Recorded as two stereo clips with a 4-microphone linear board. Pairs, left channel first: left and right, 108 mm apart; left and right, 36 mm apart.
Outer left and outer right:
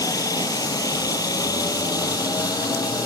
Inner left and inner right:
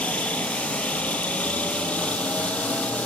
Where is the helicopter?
35° left (ahead or behind).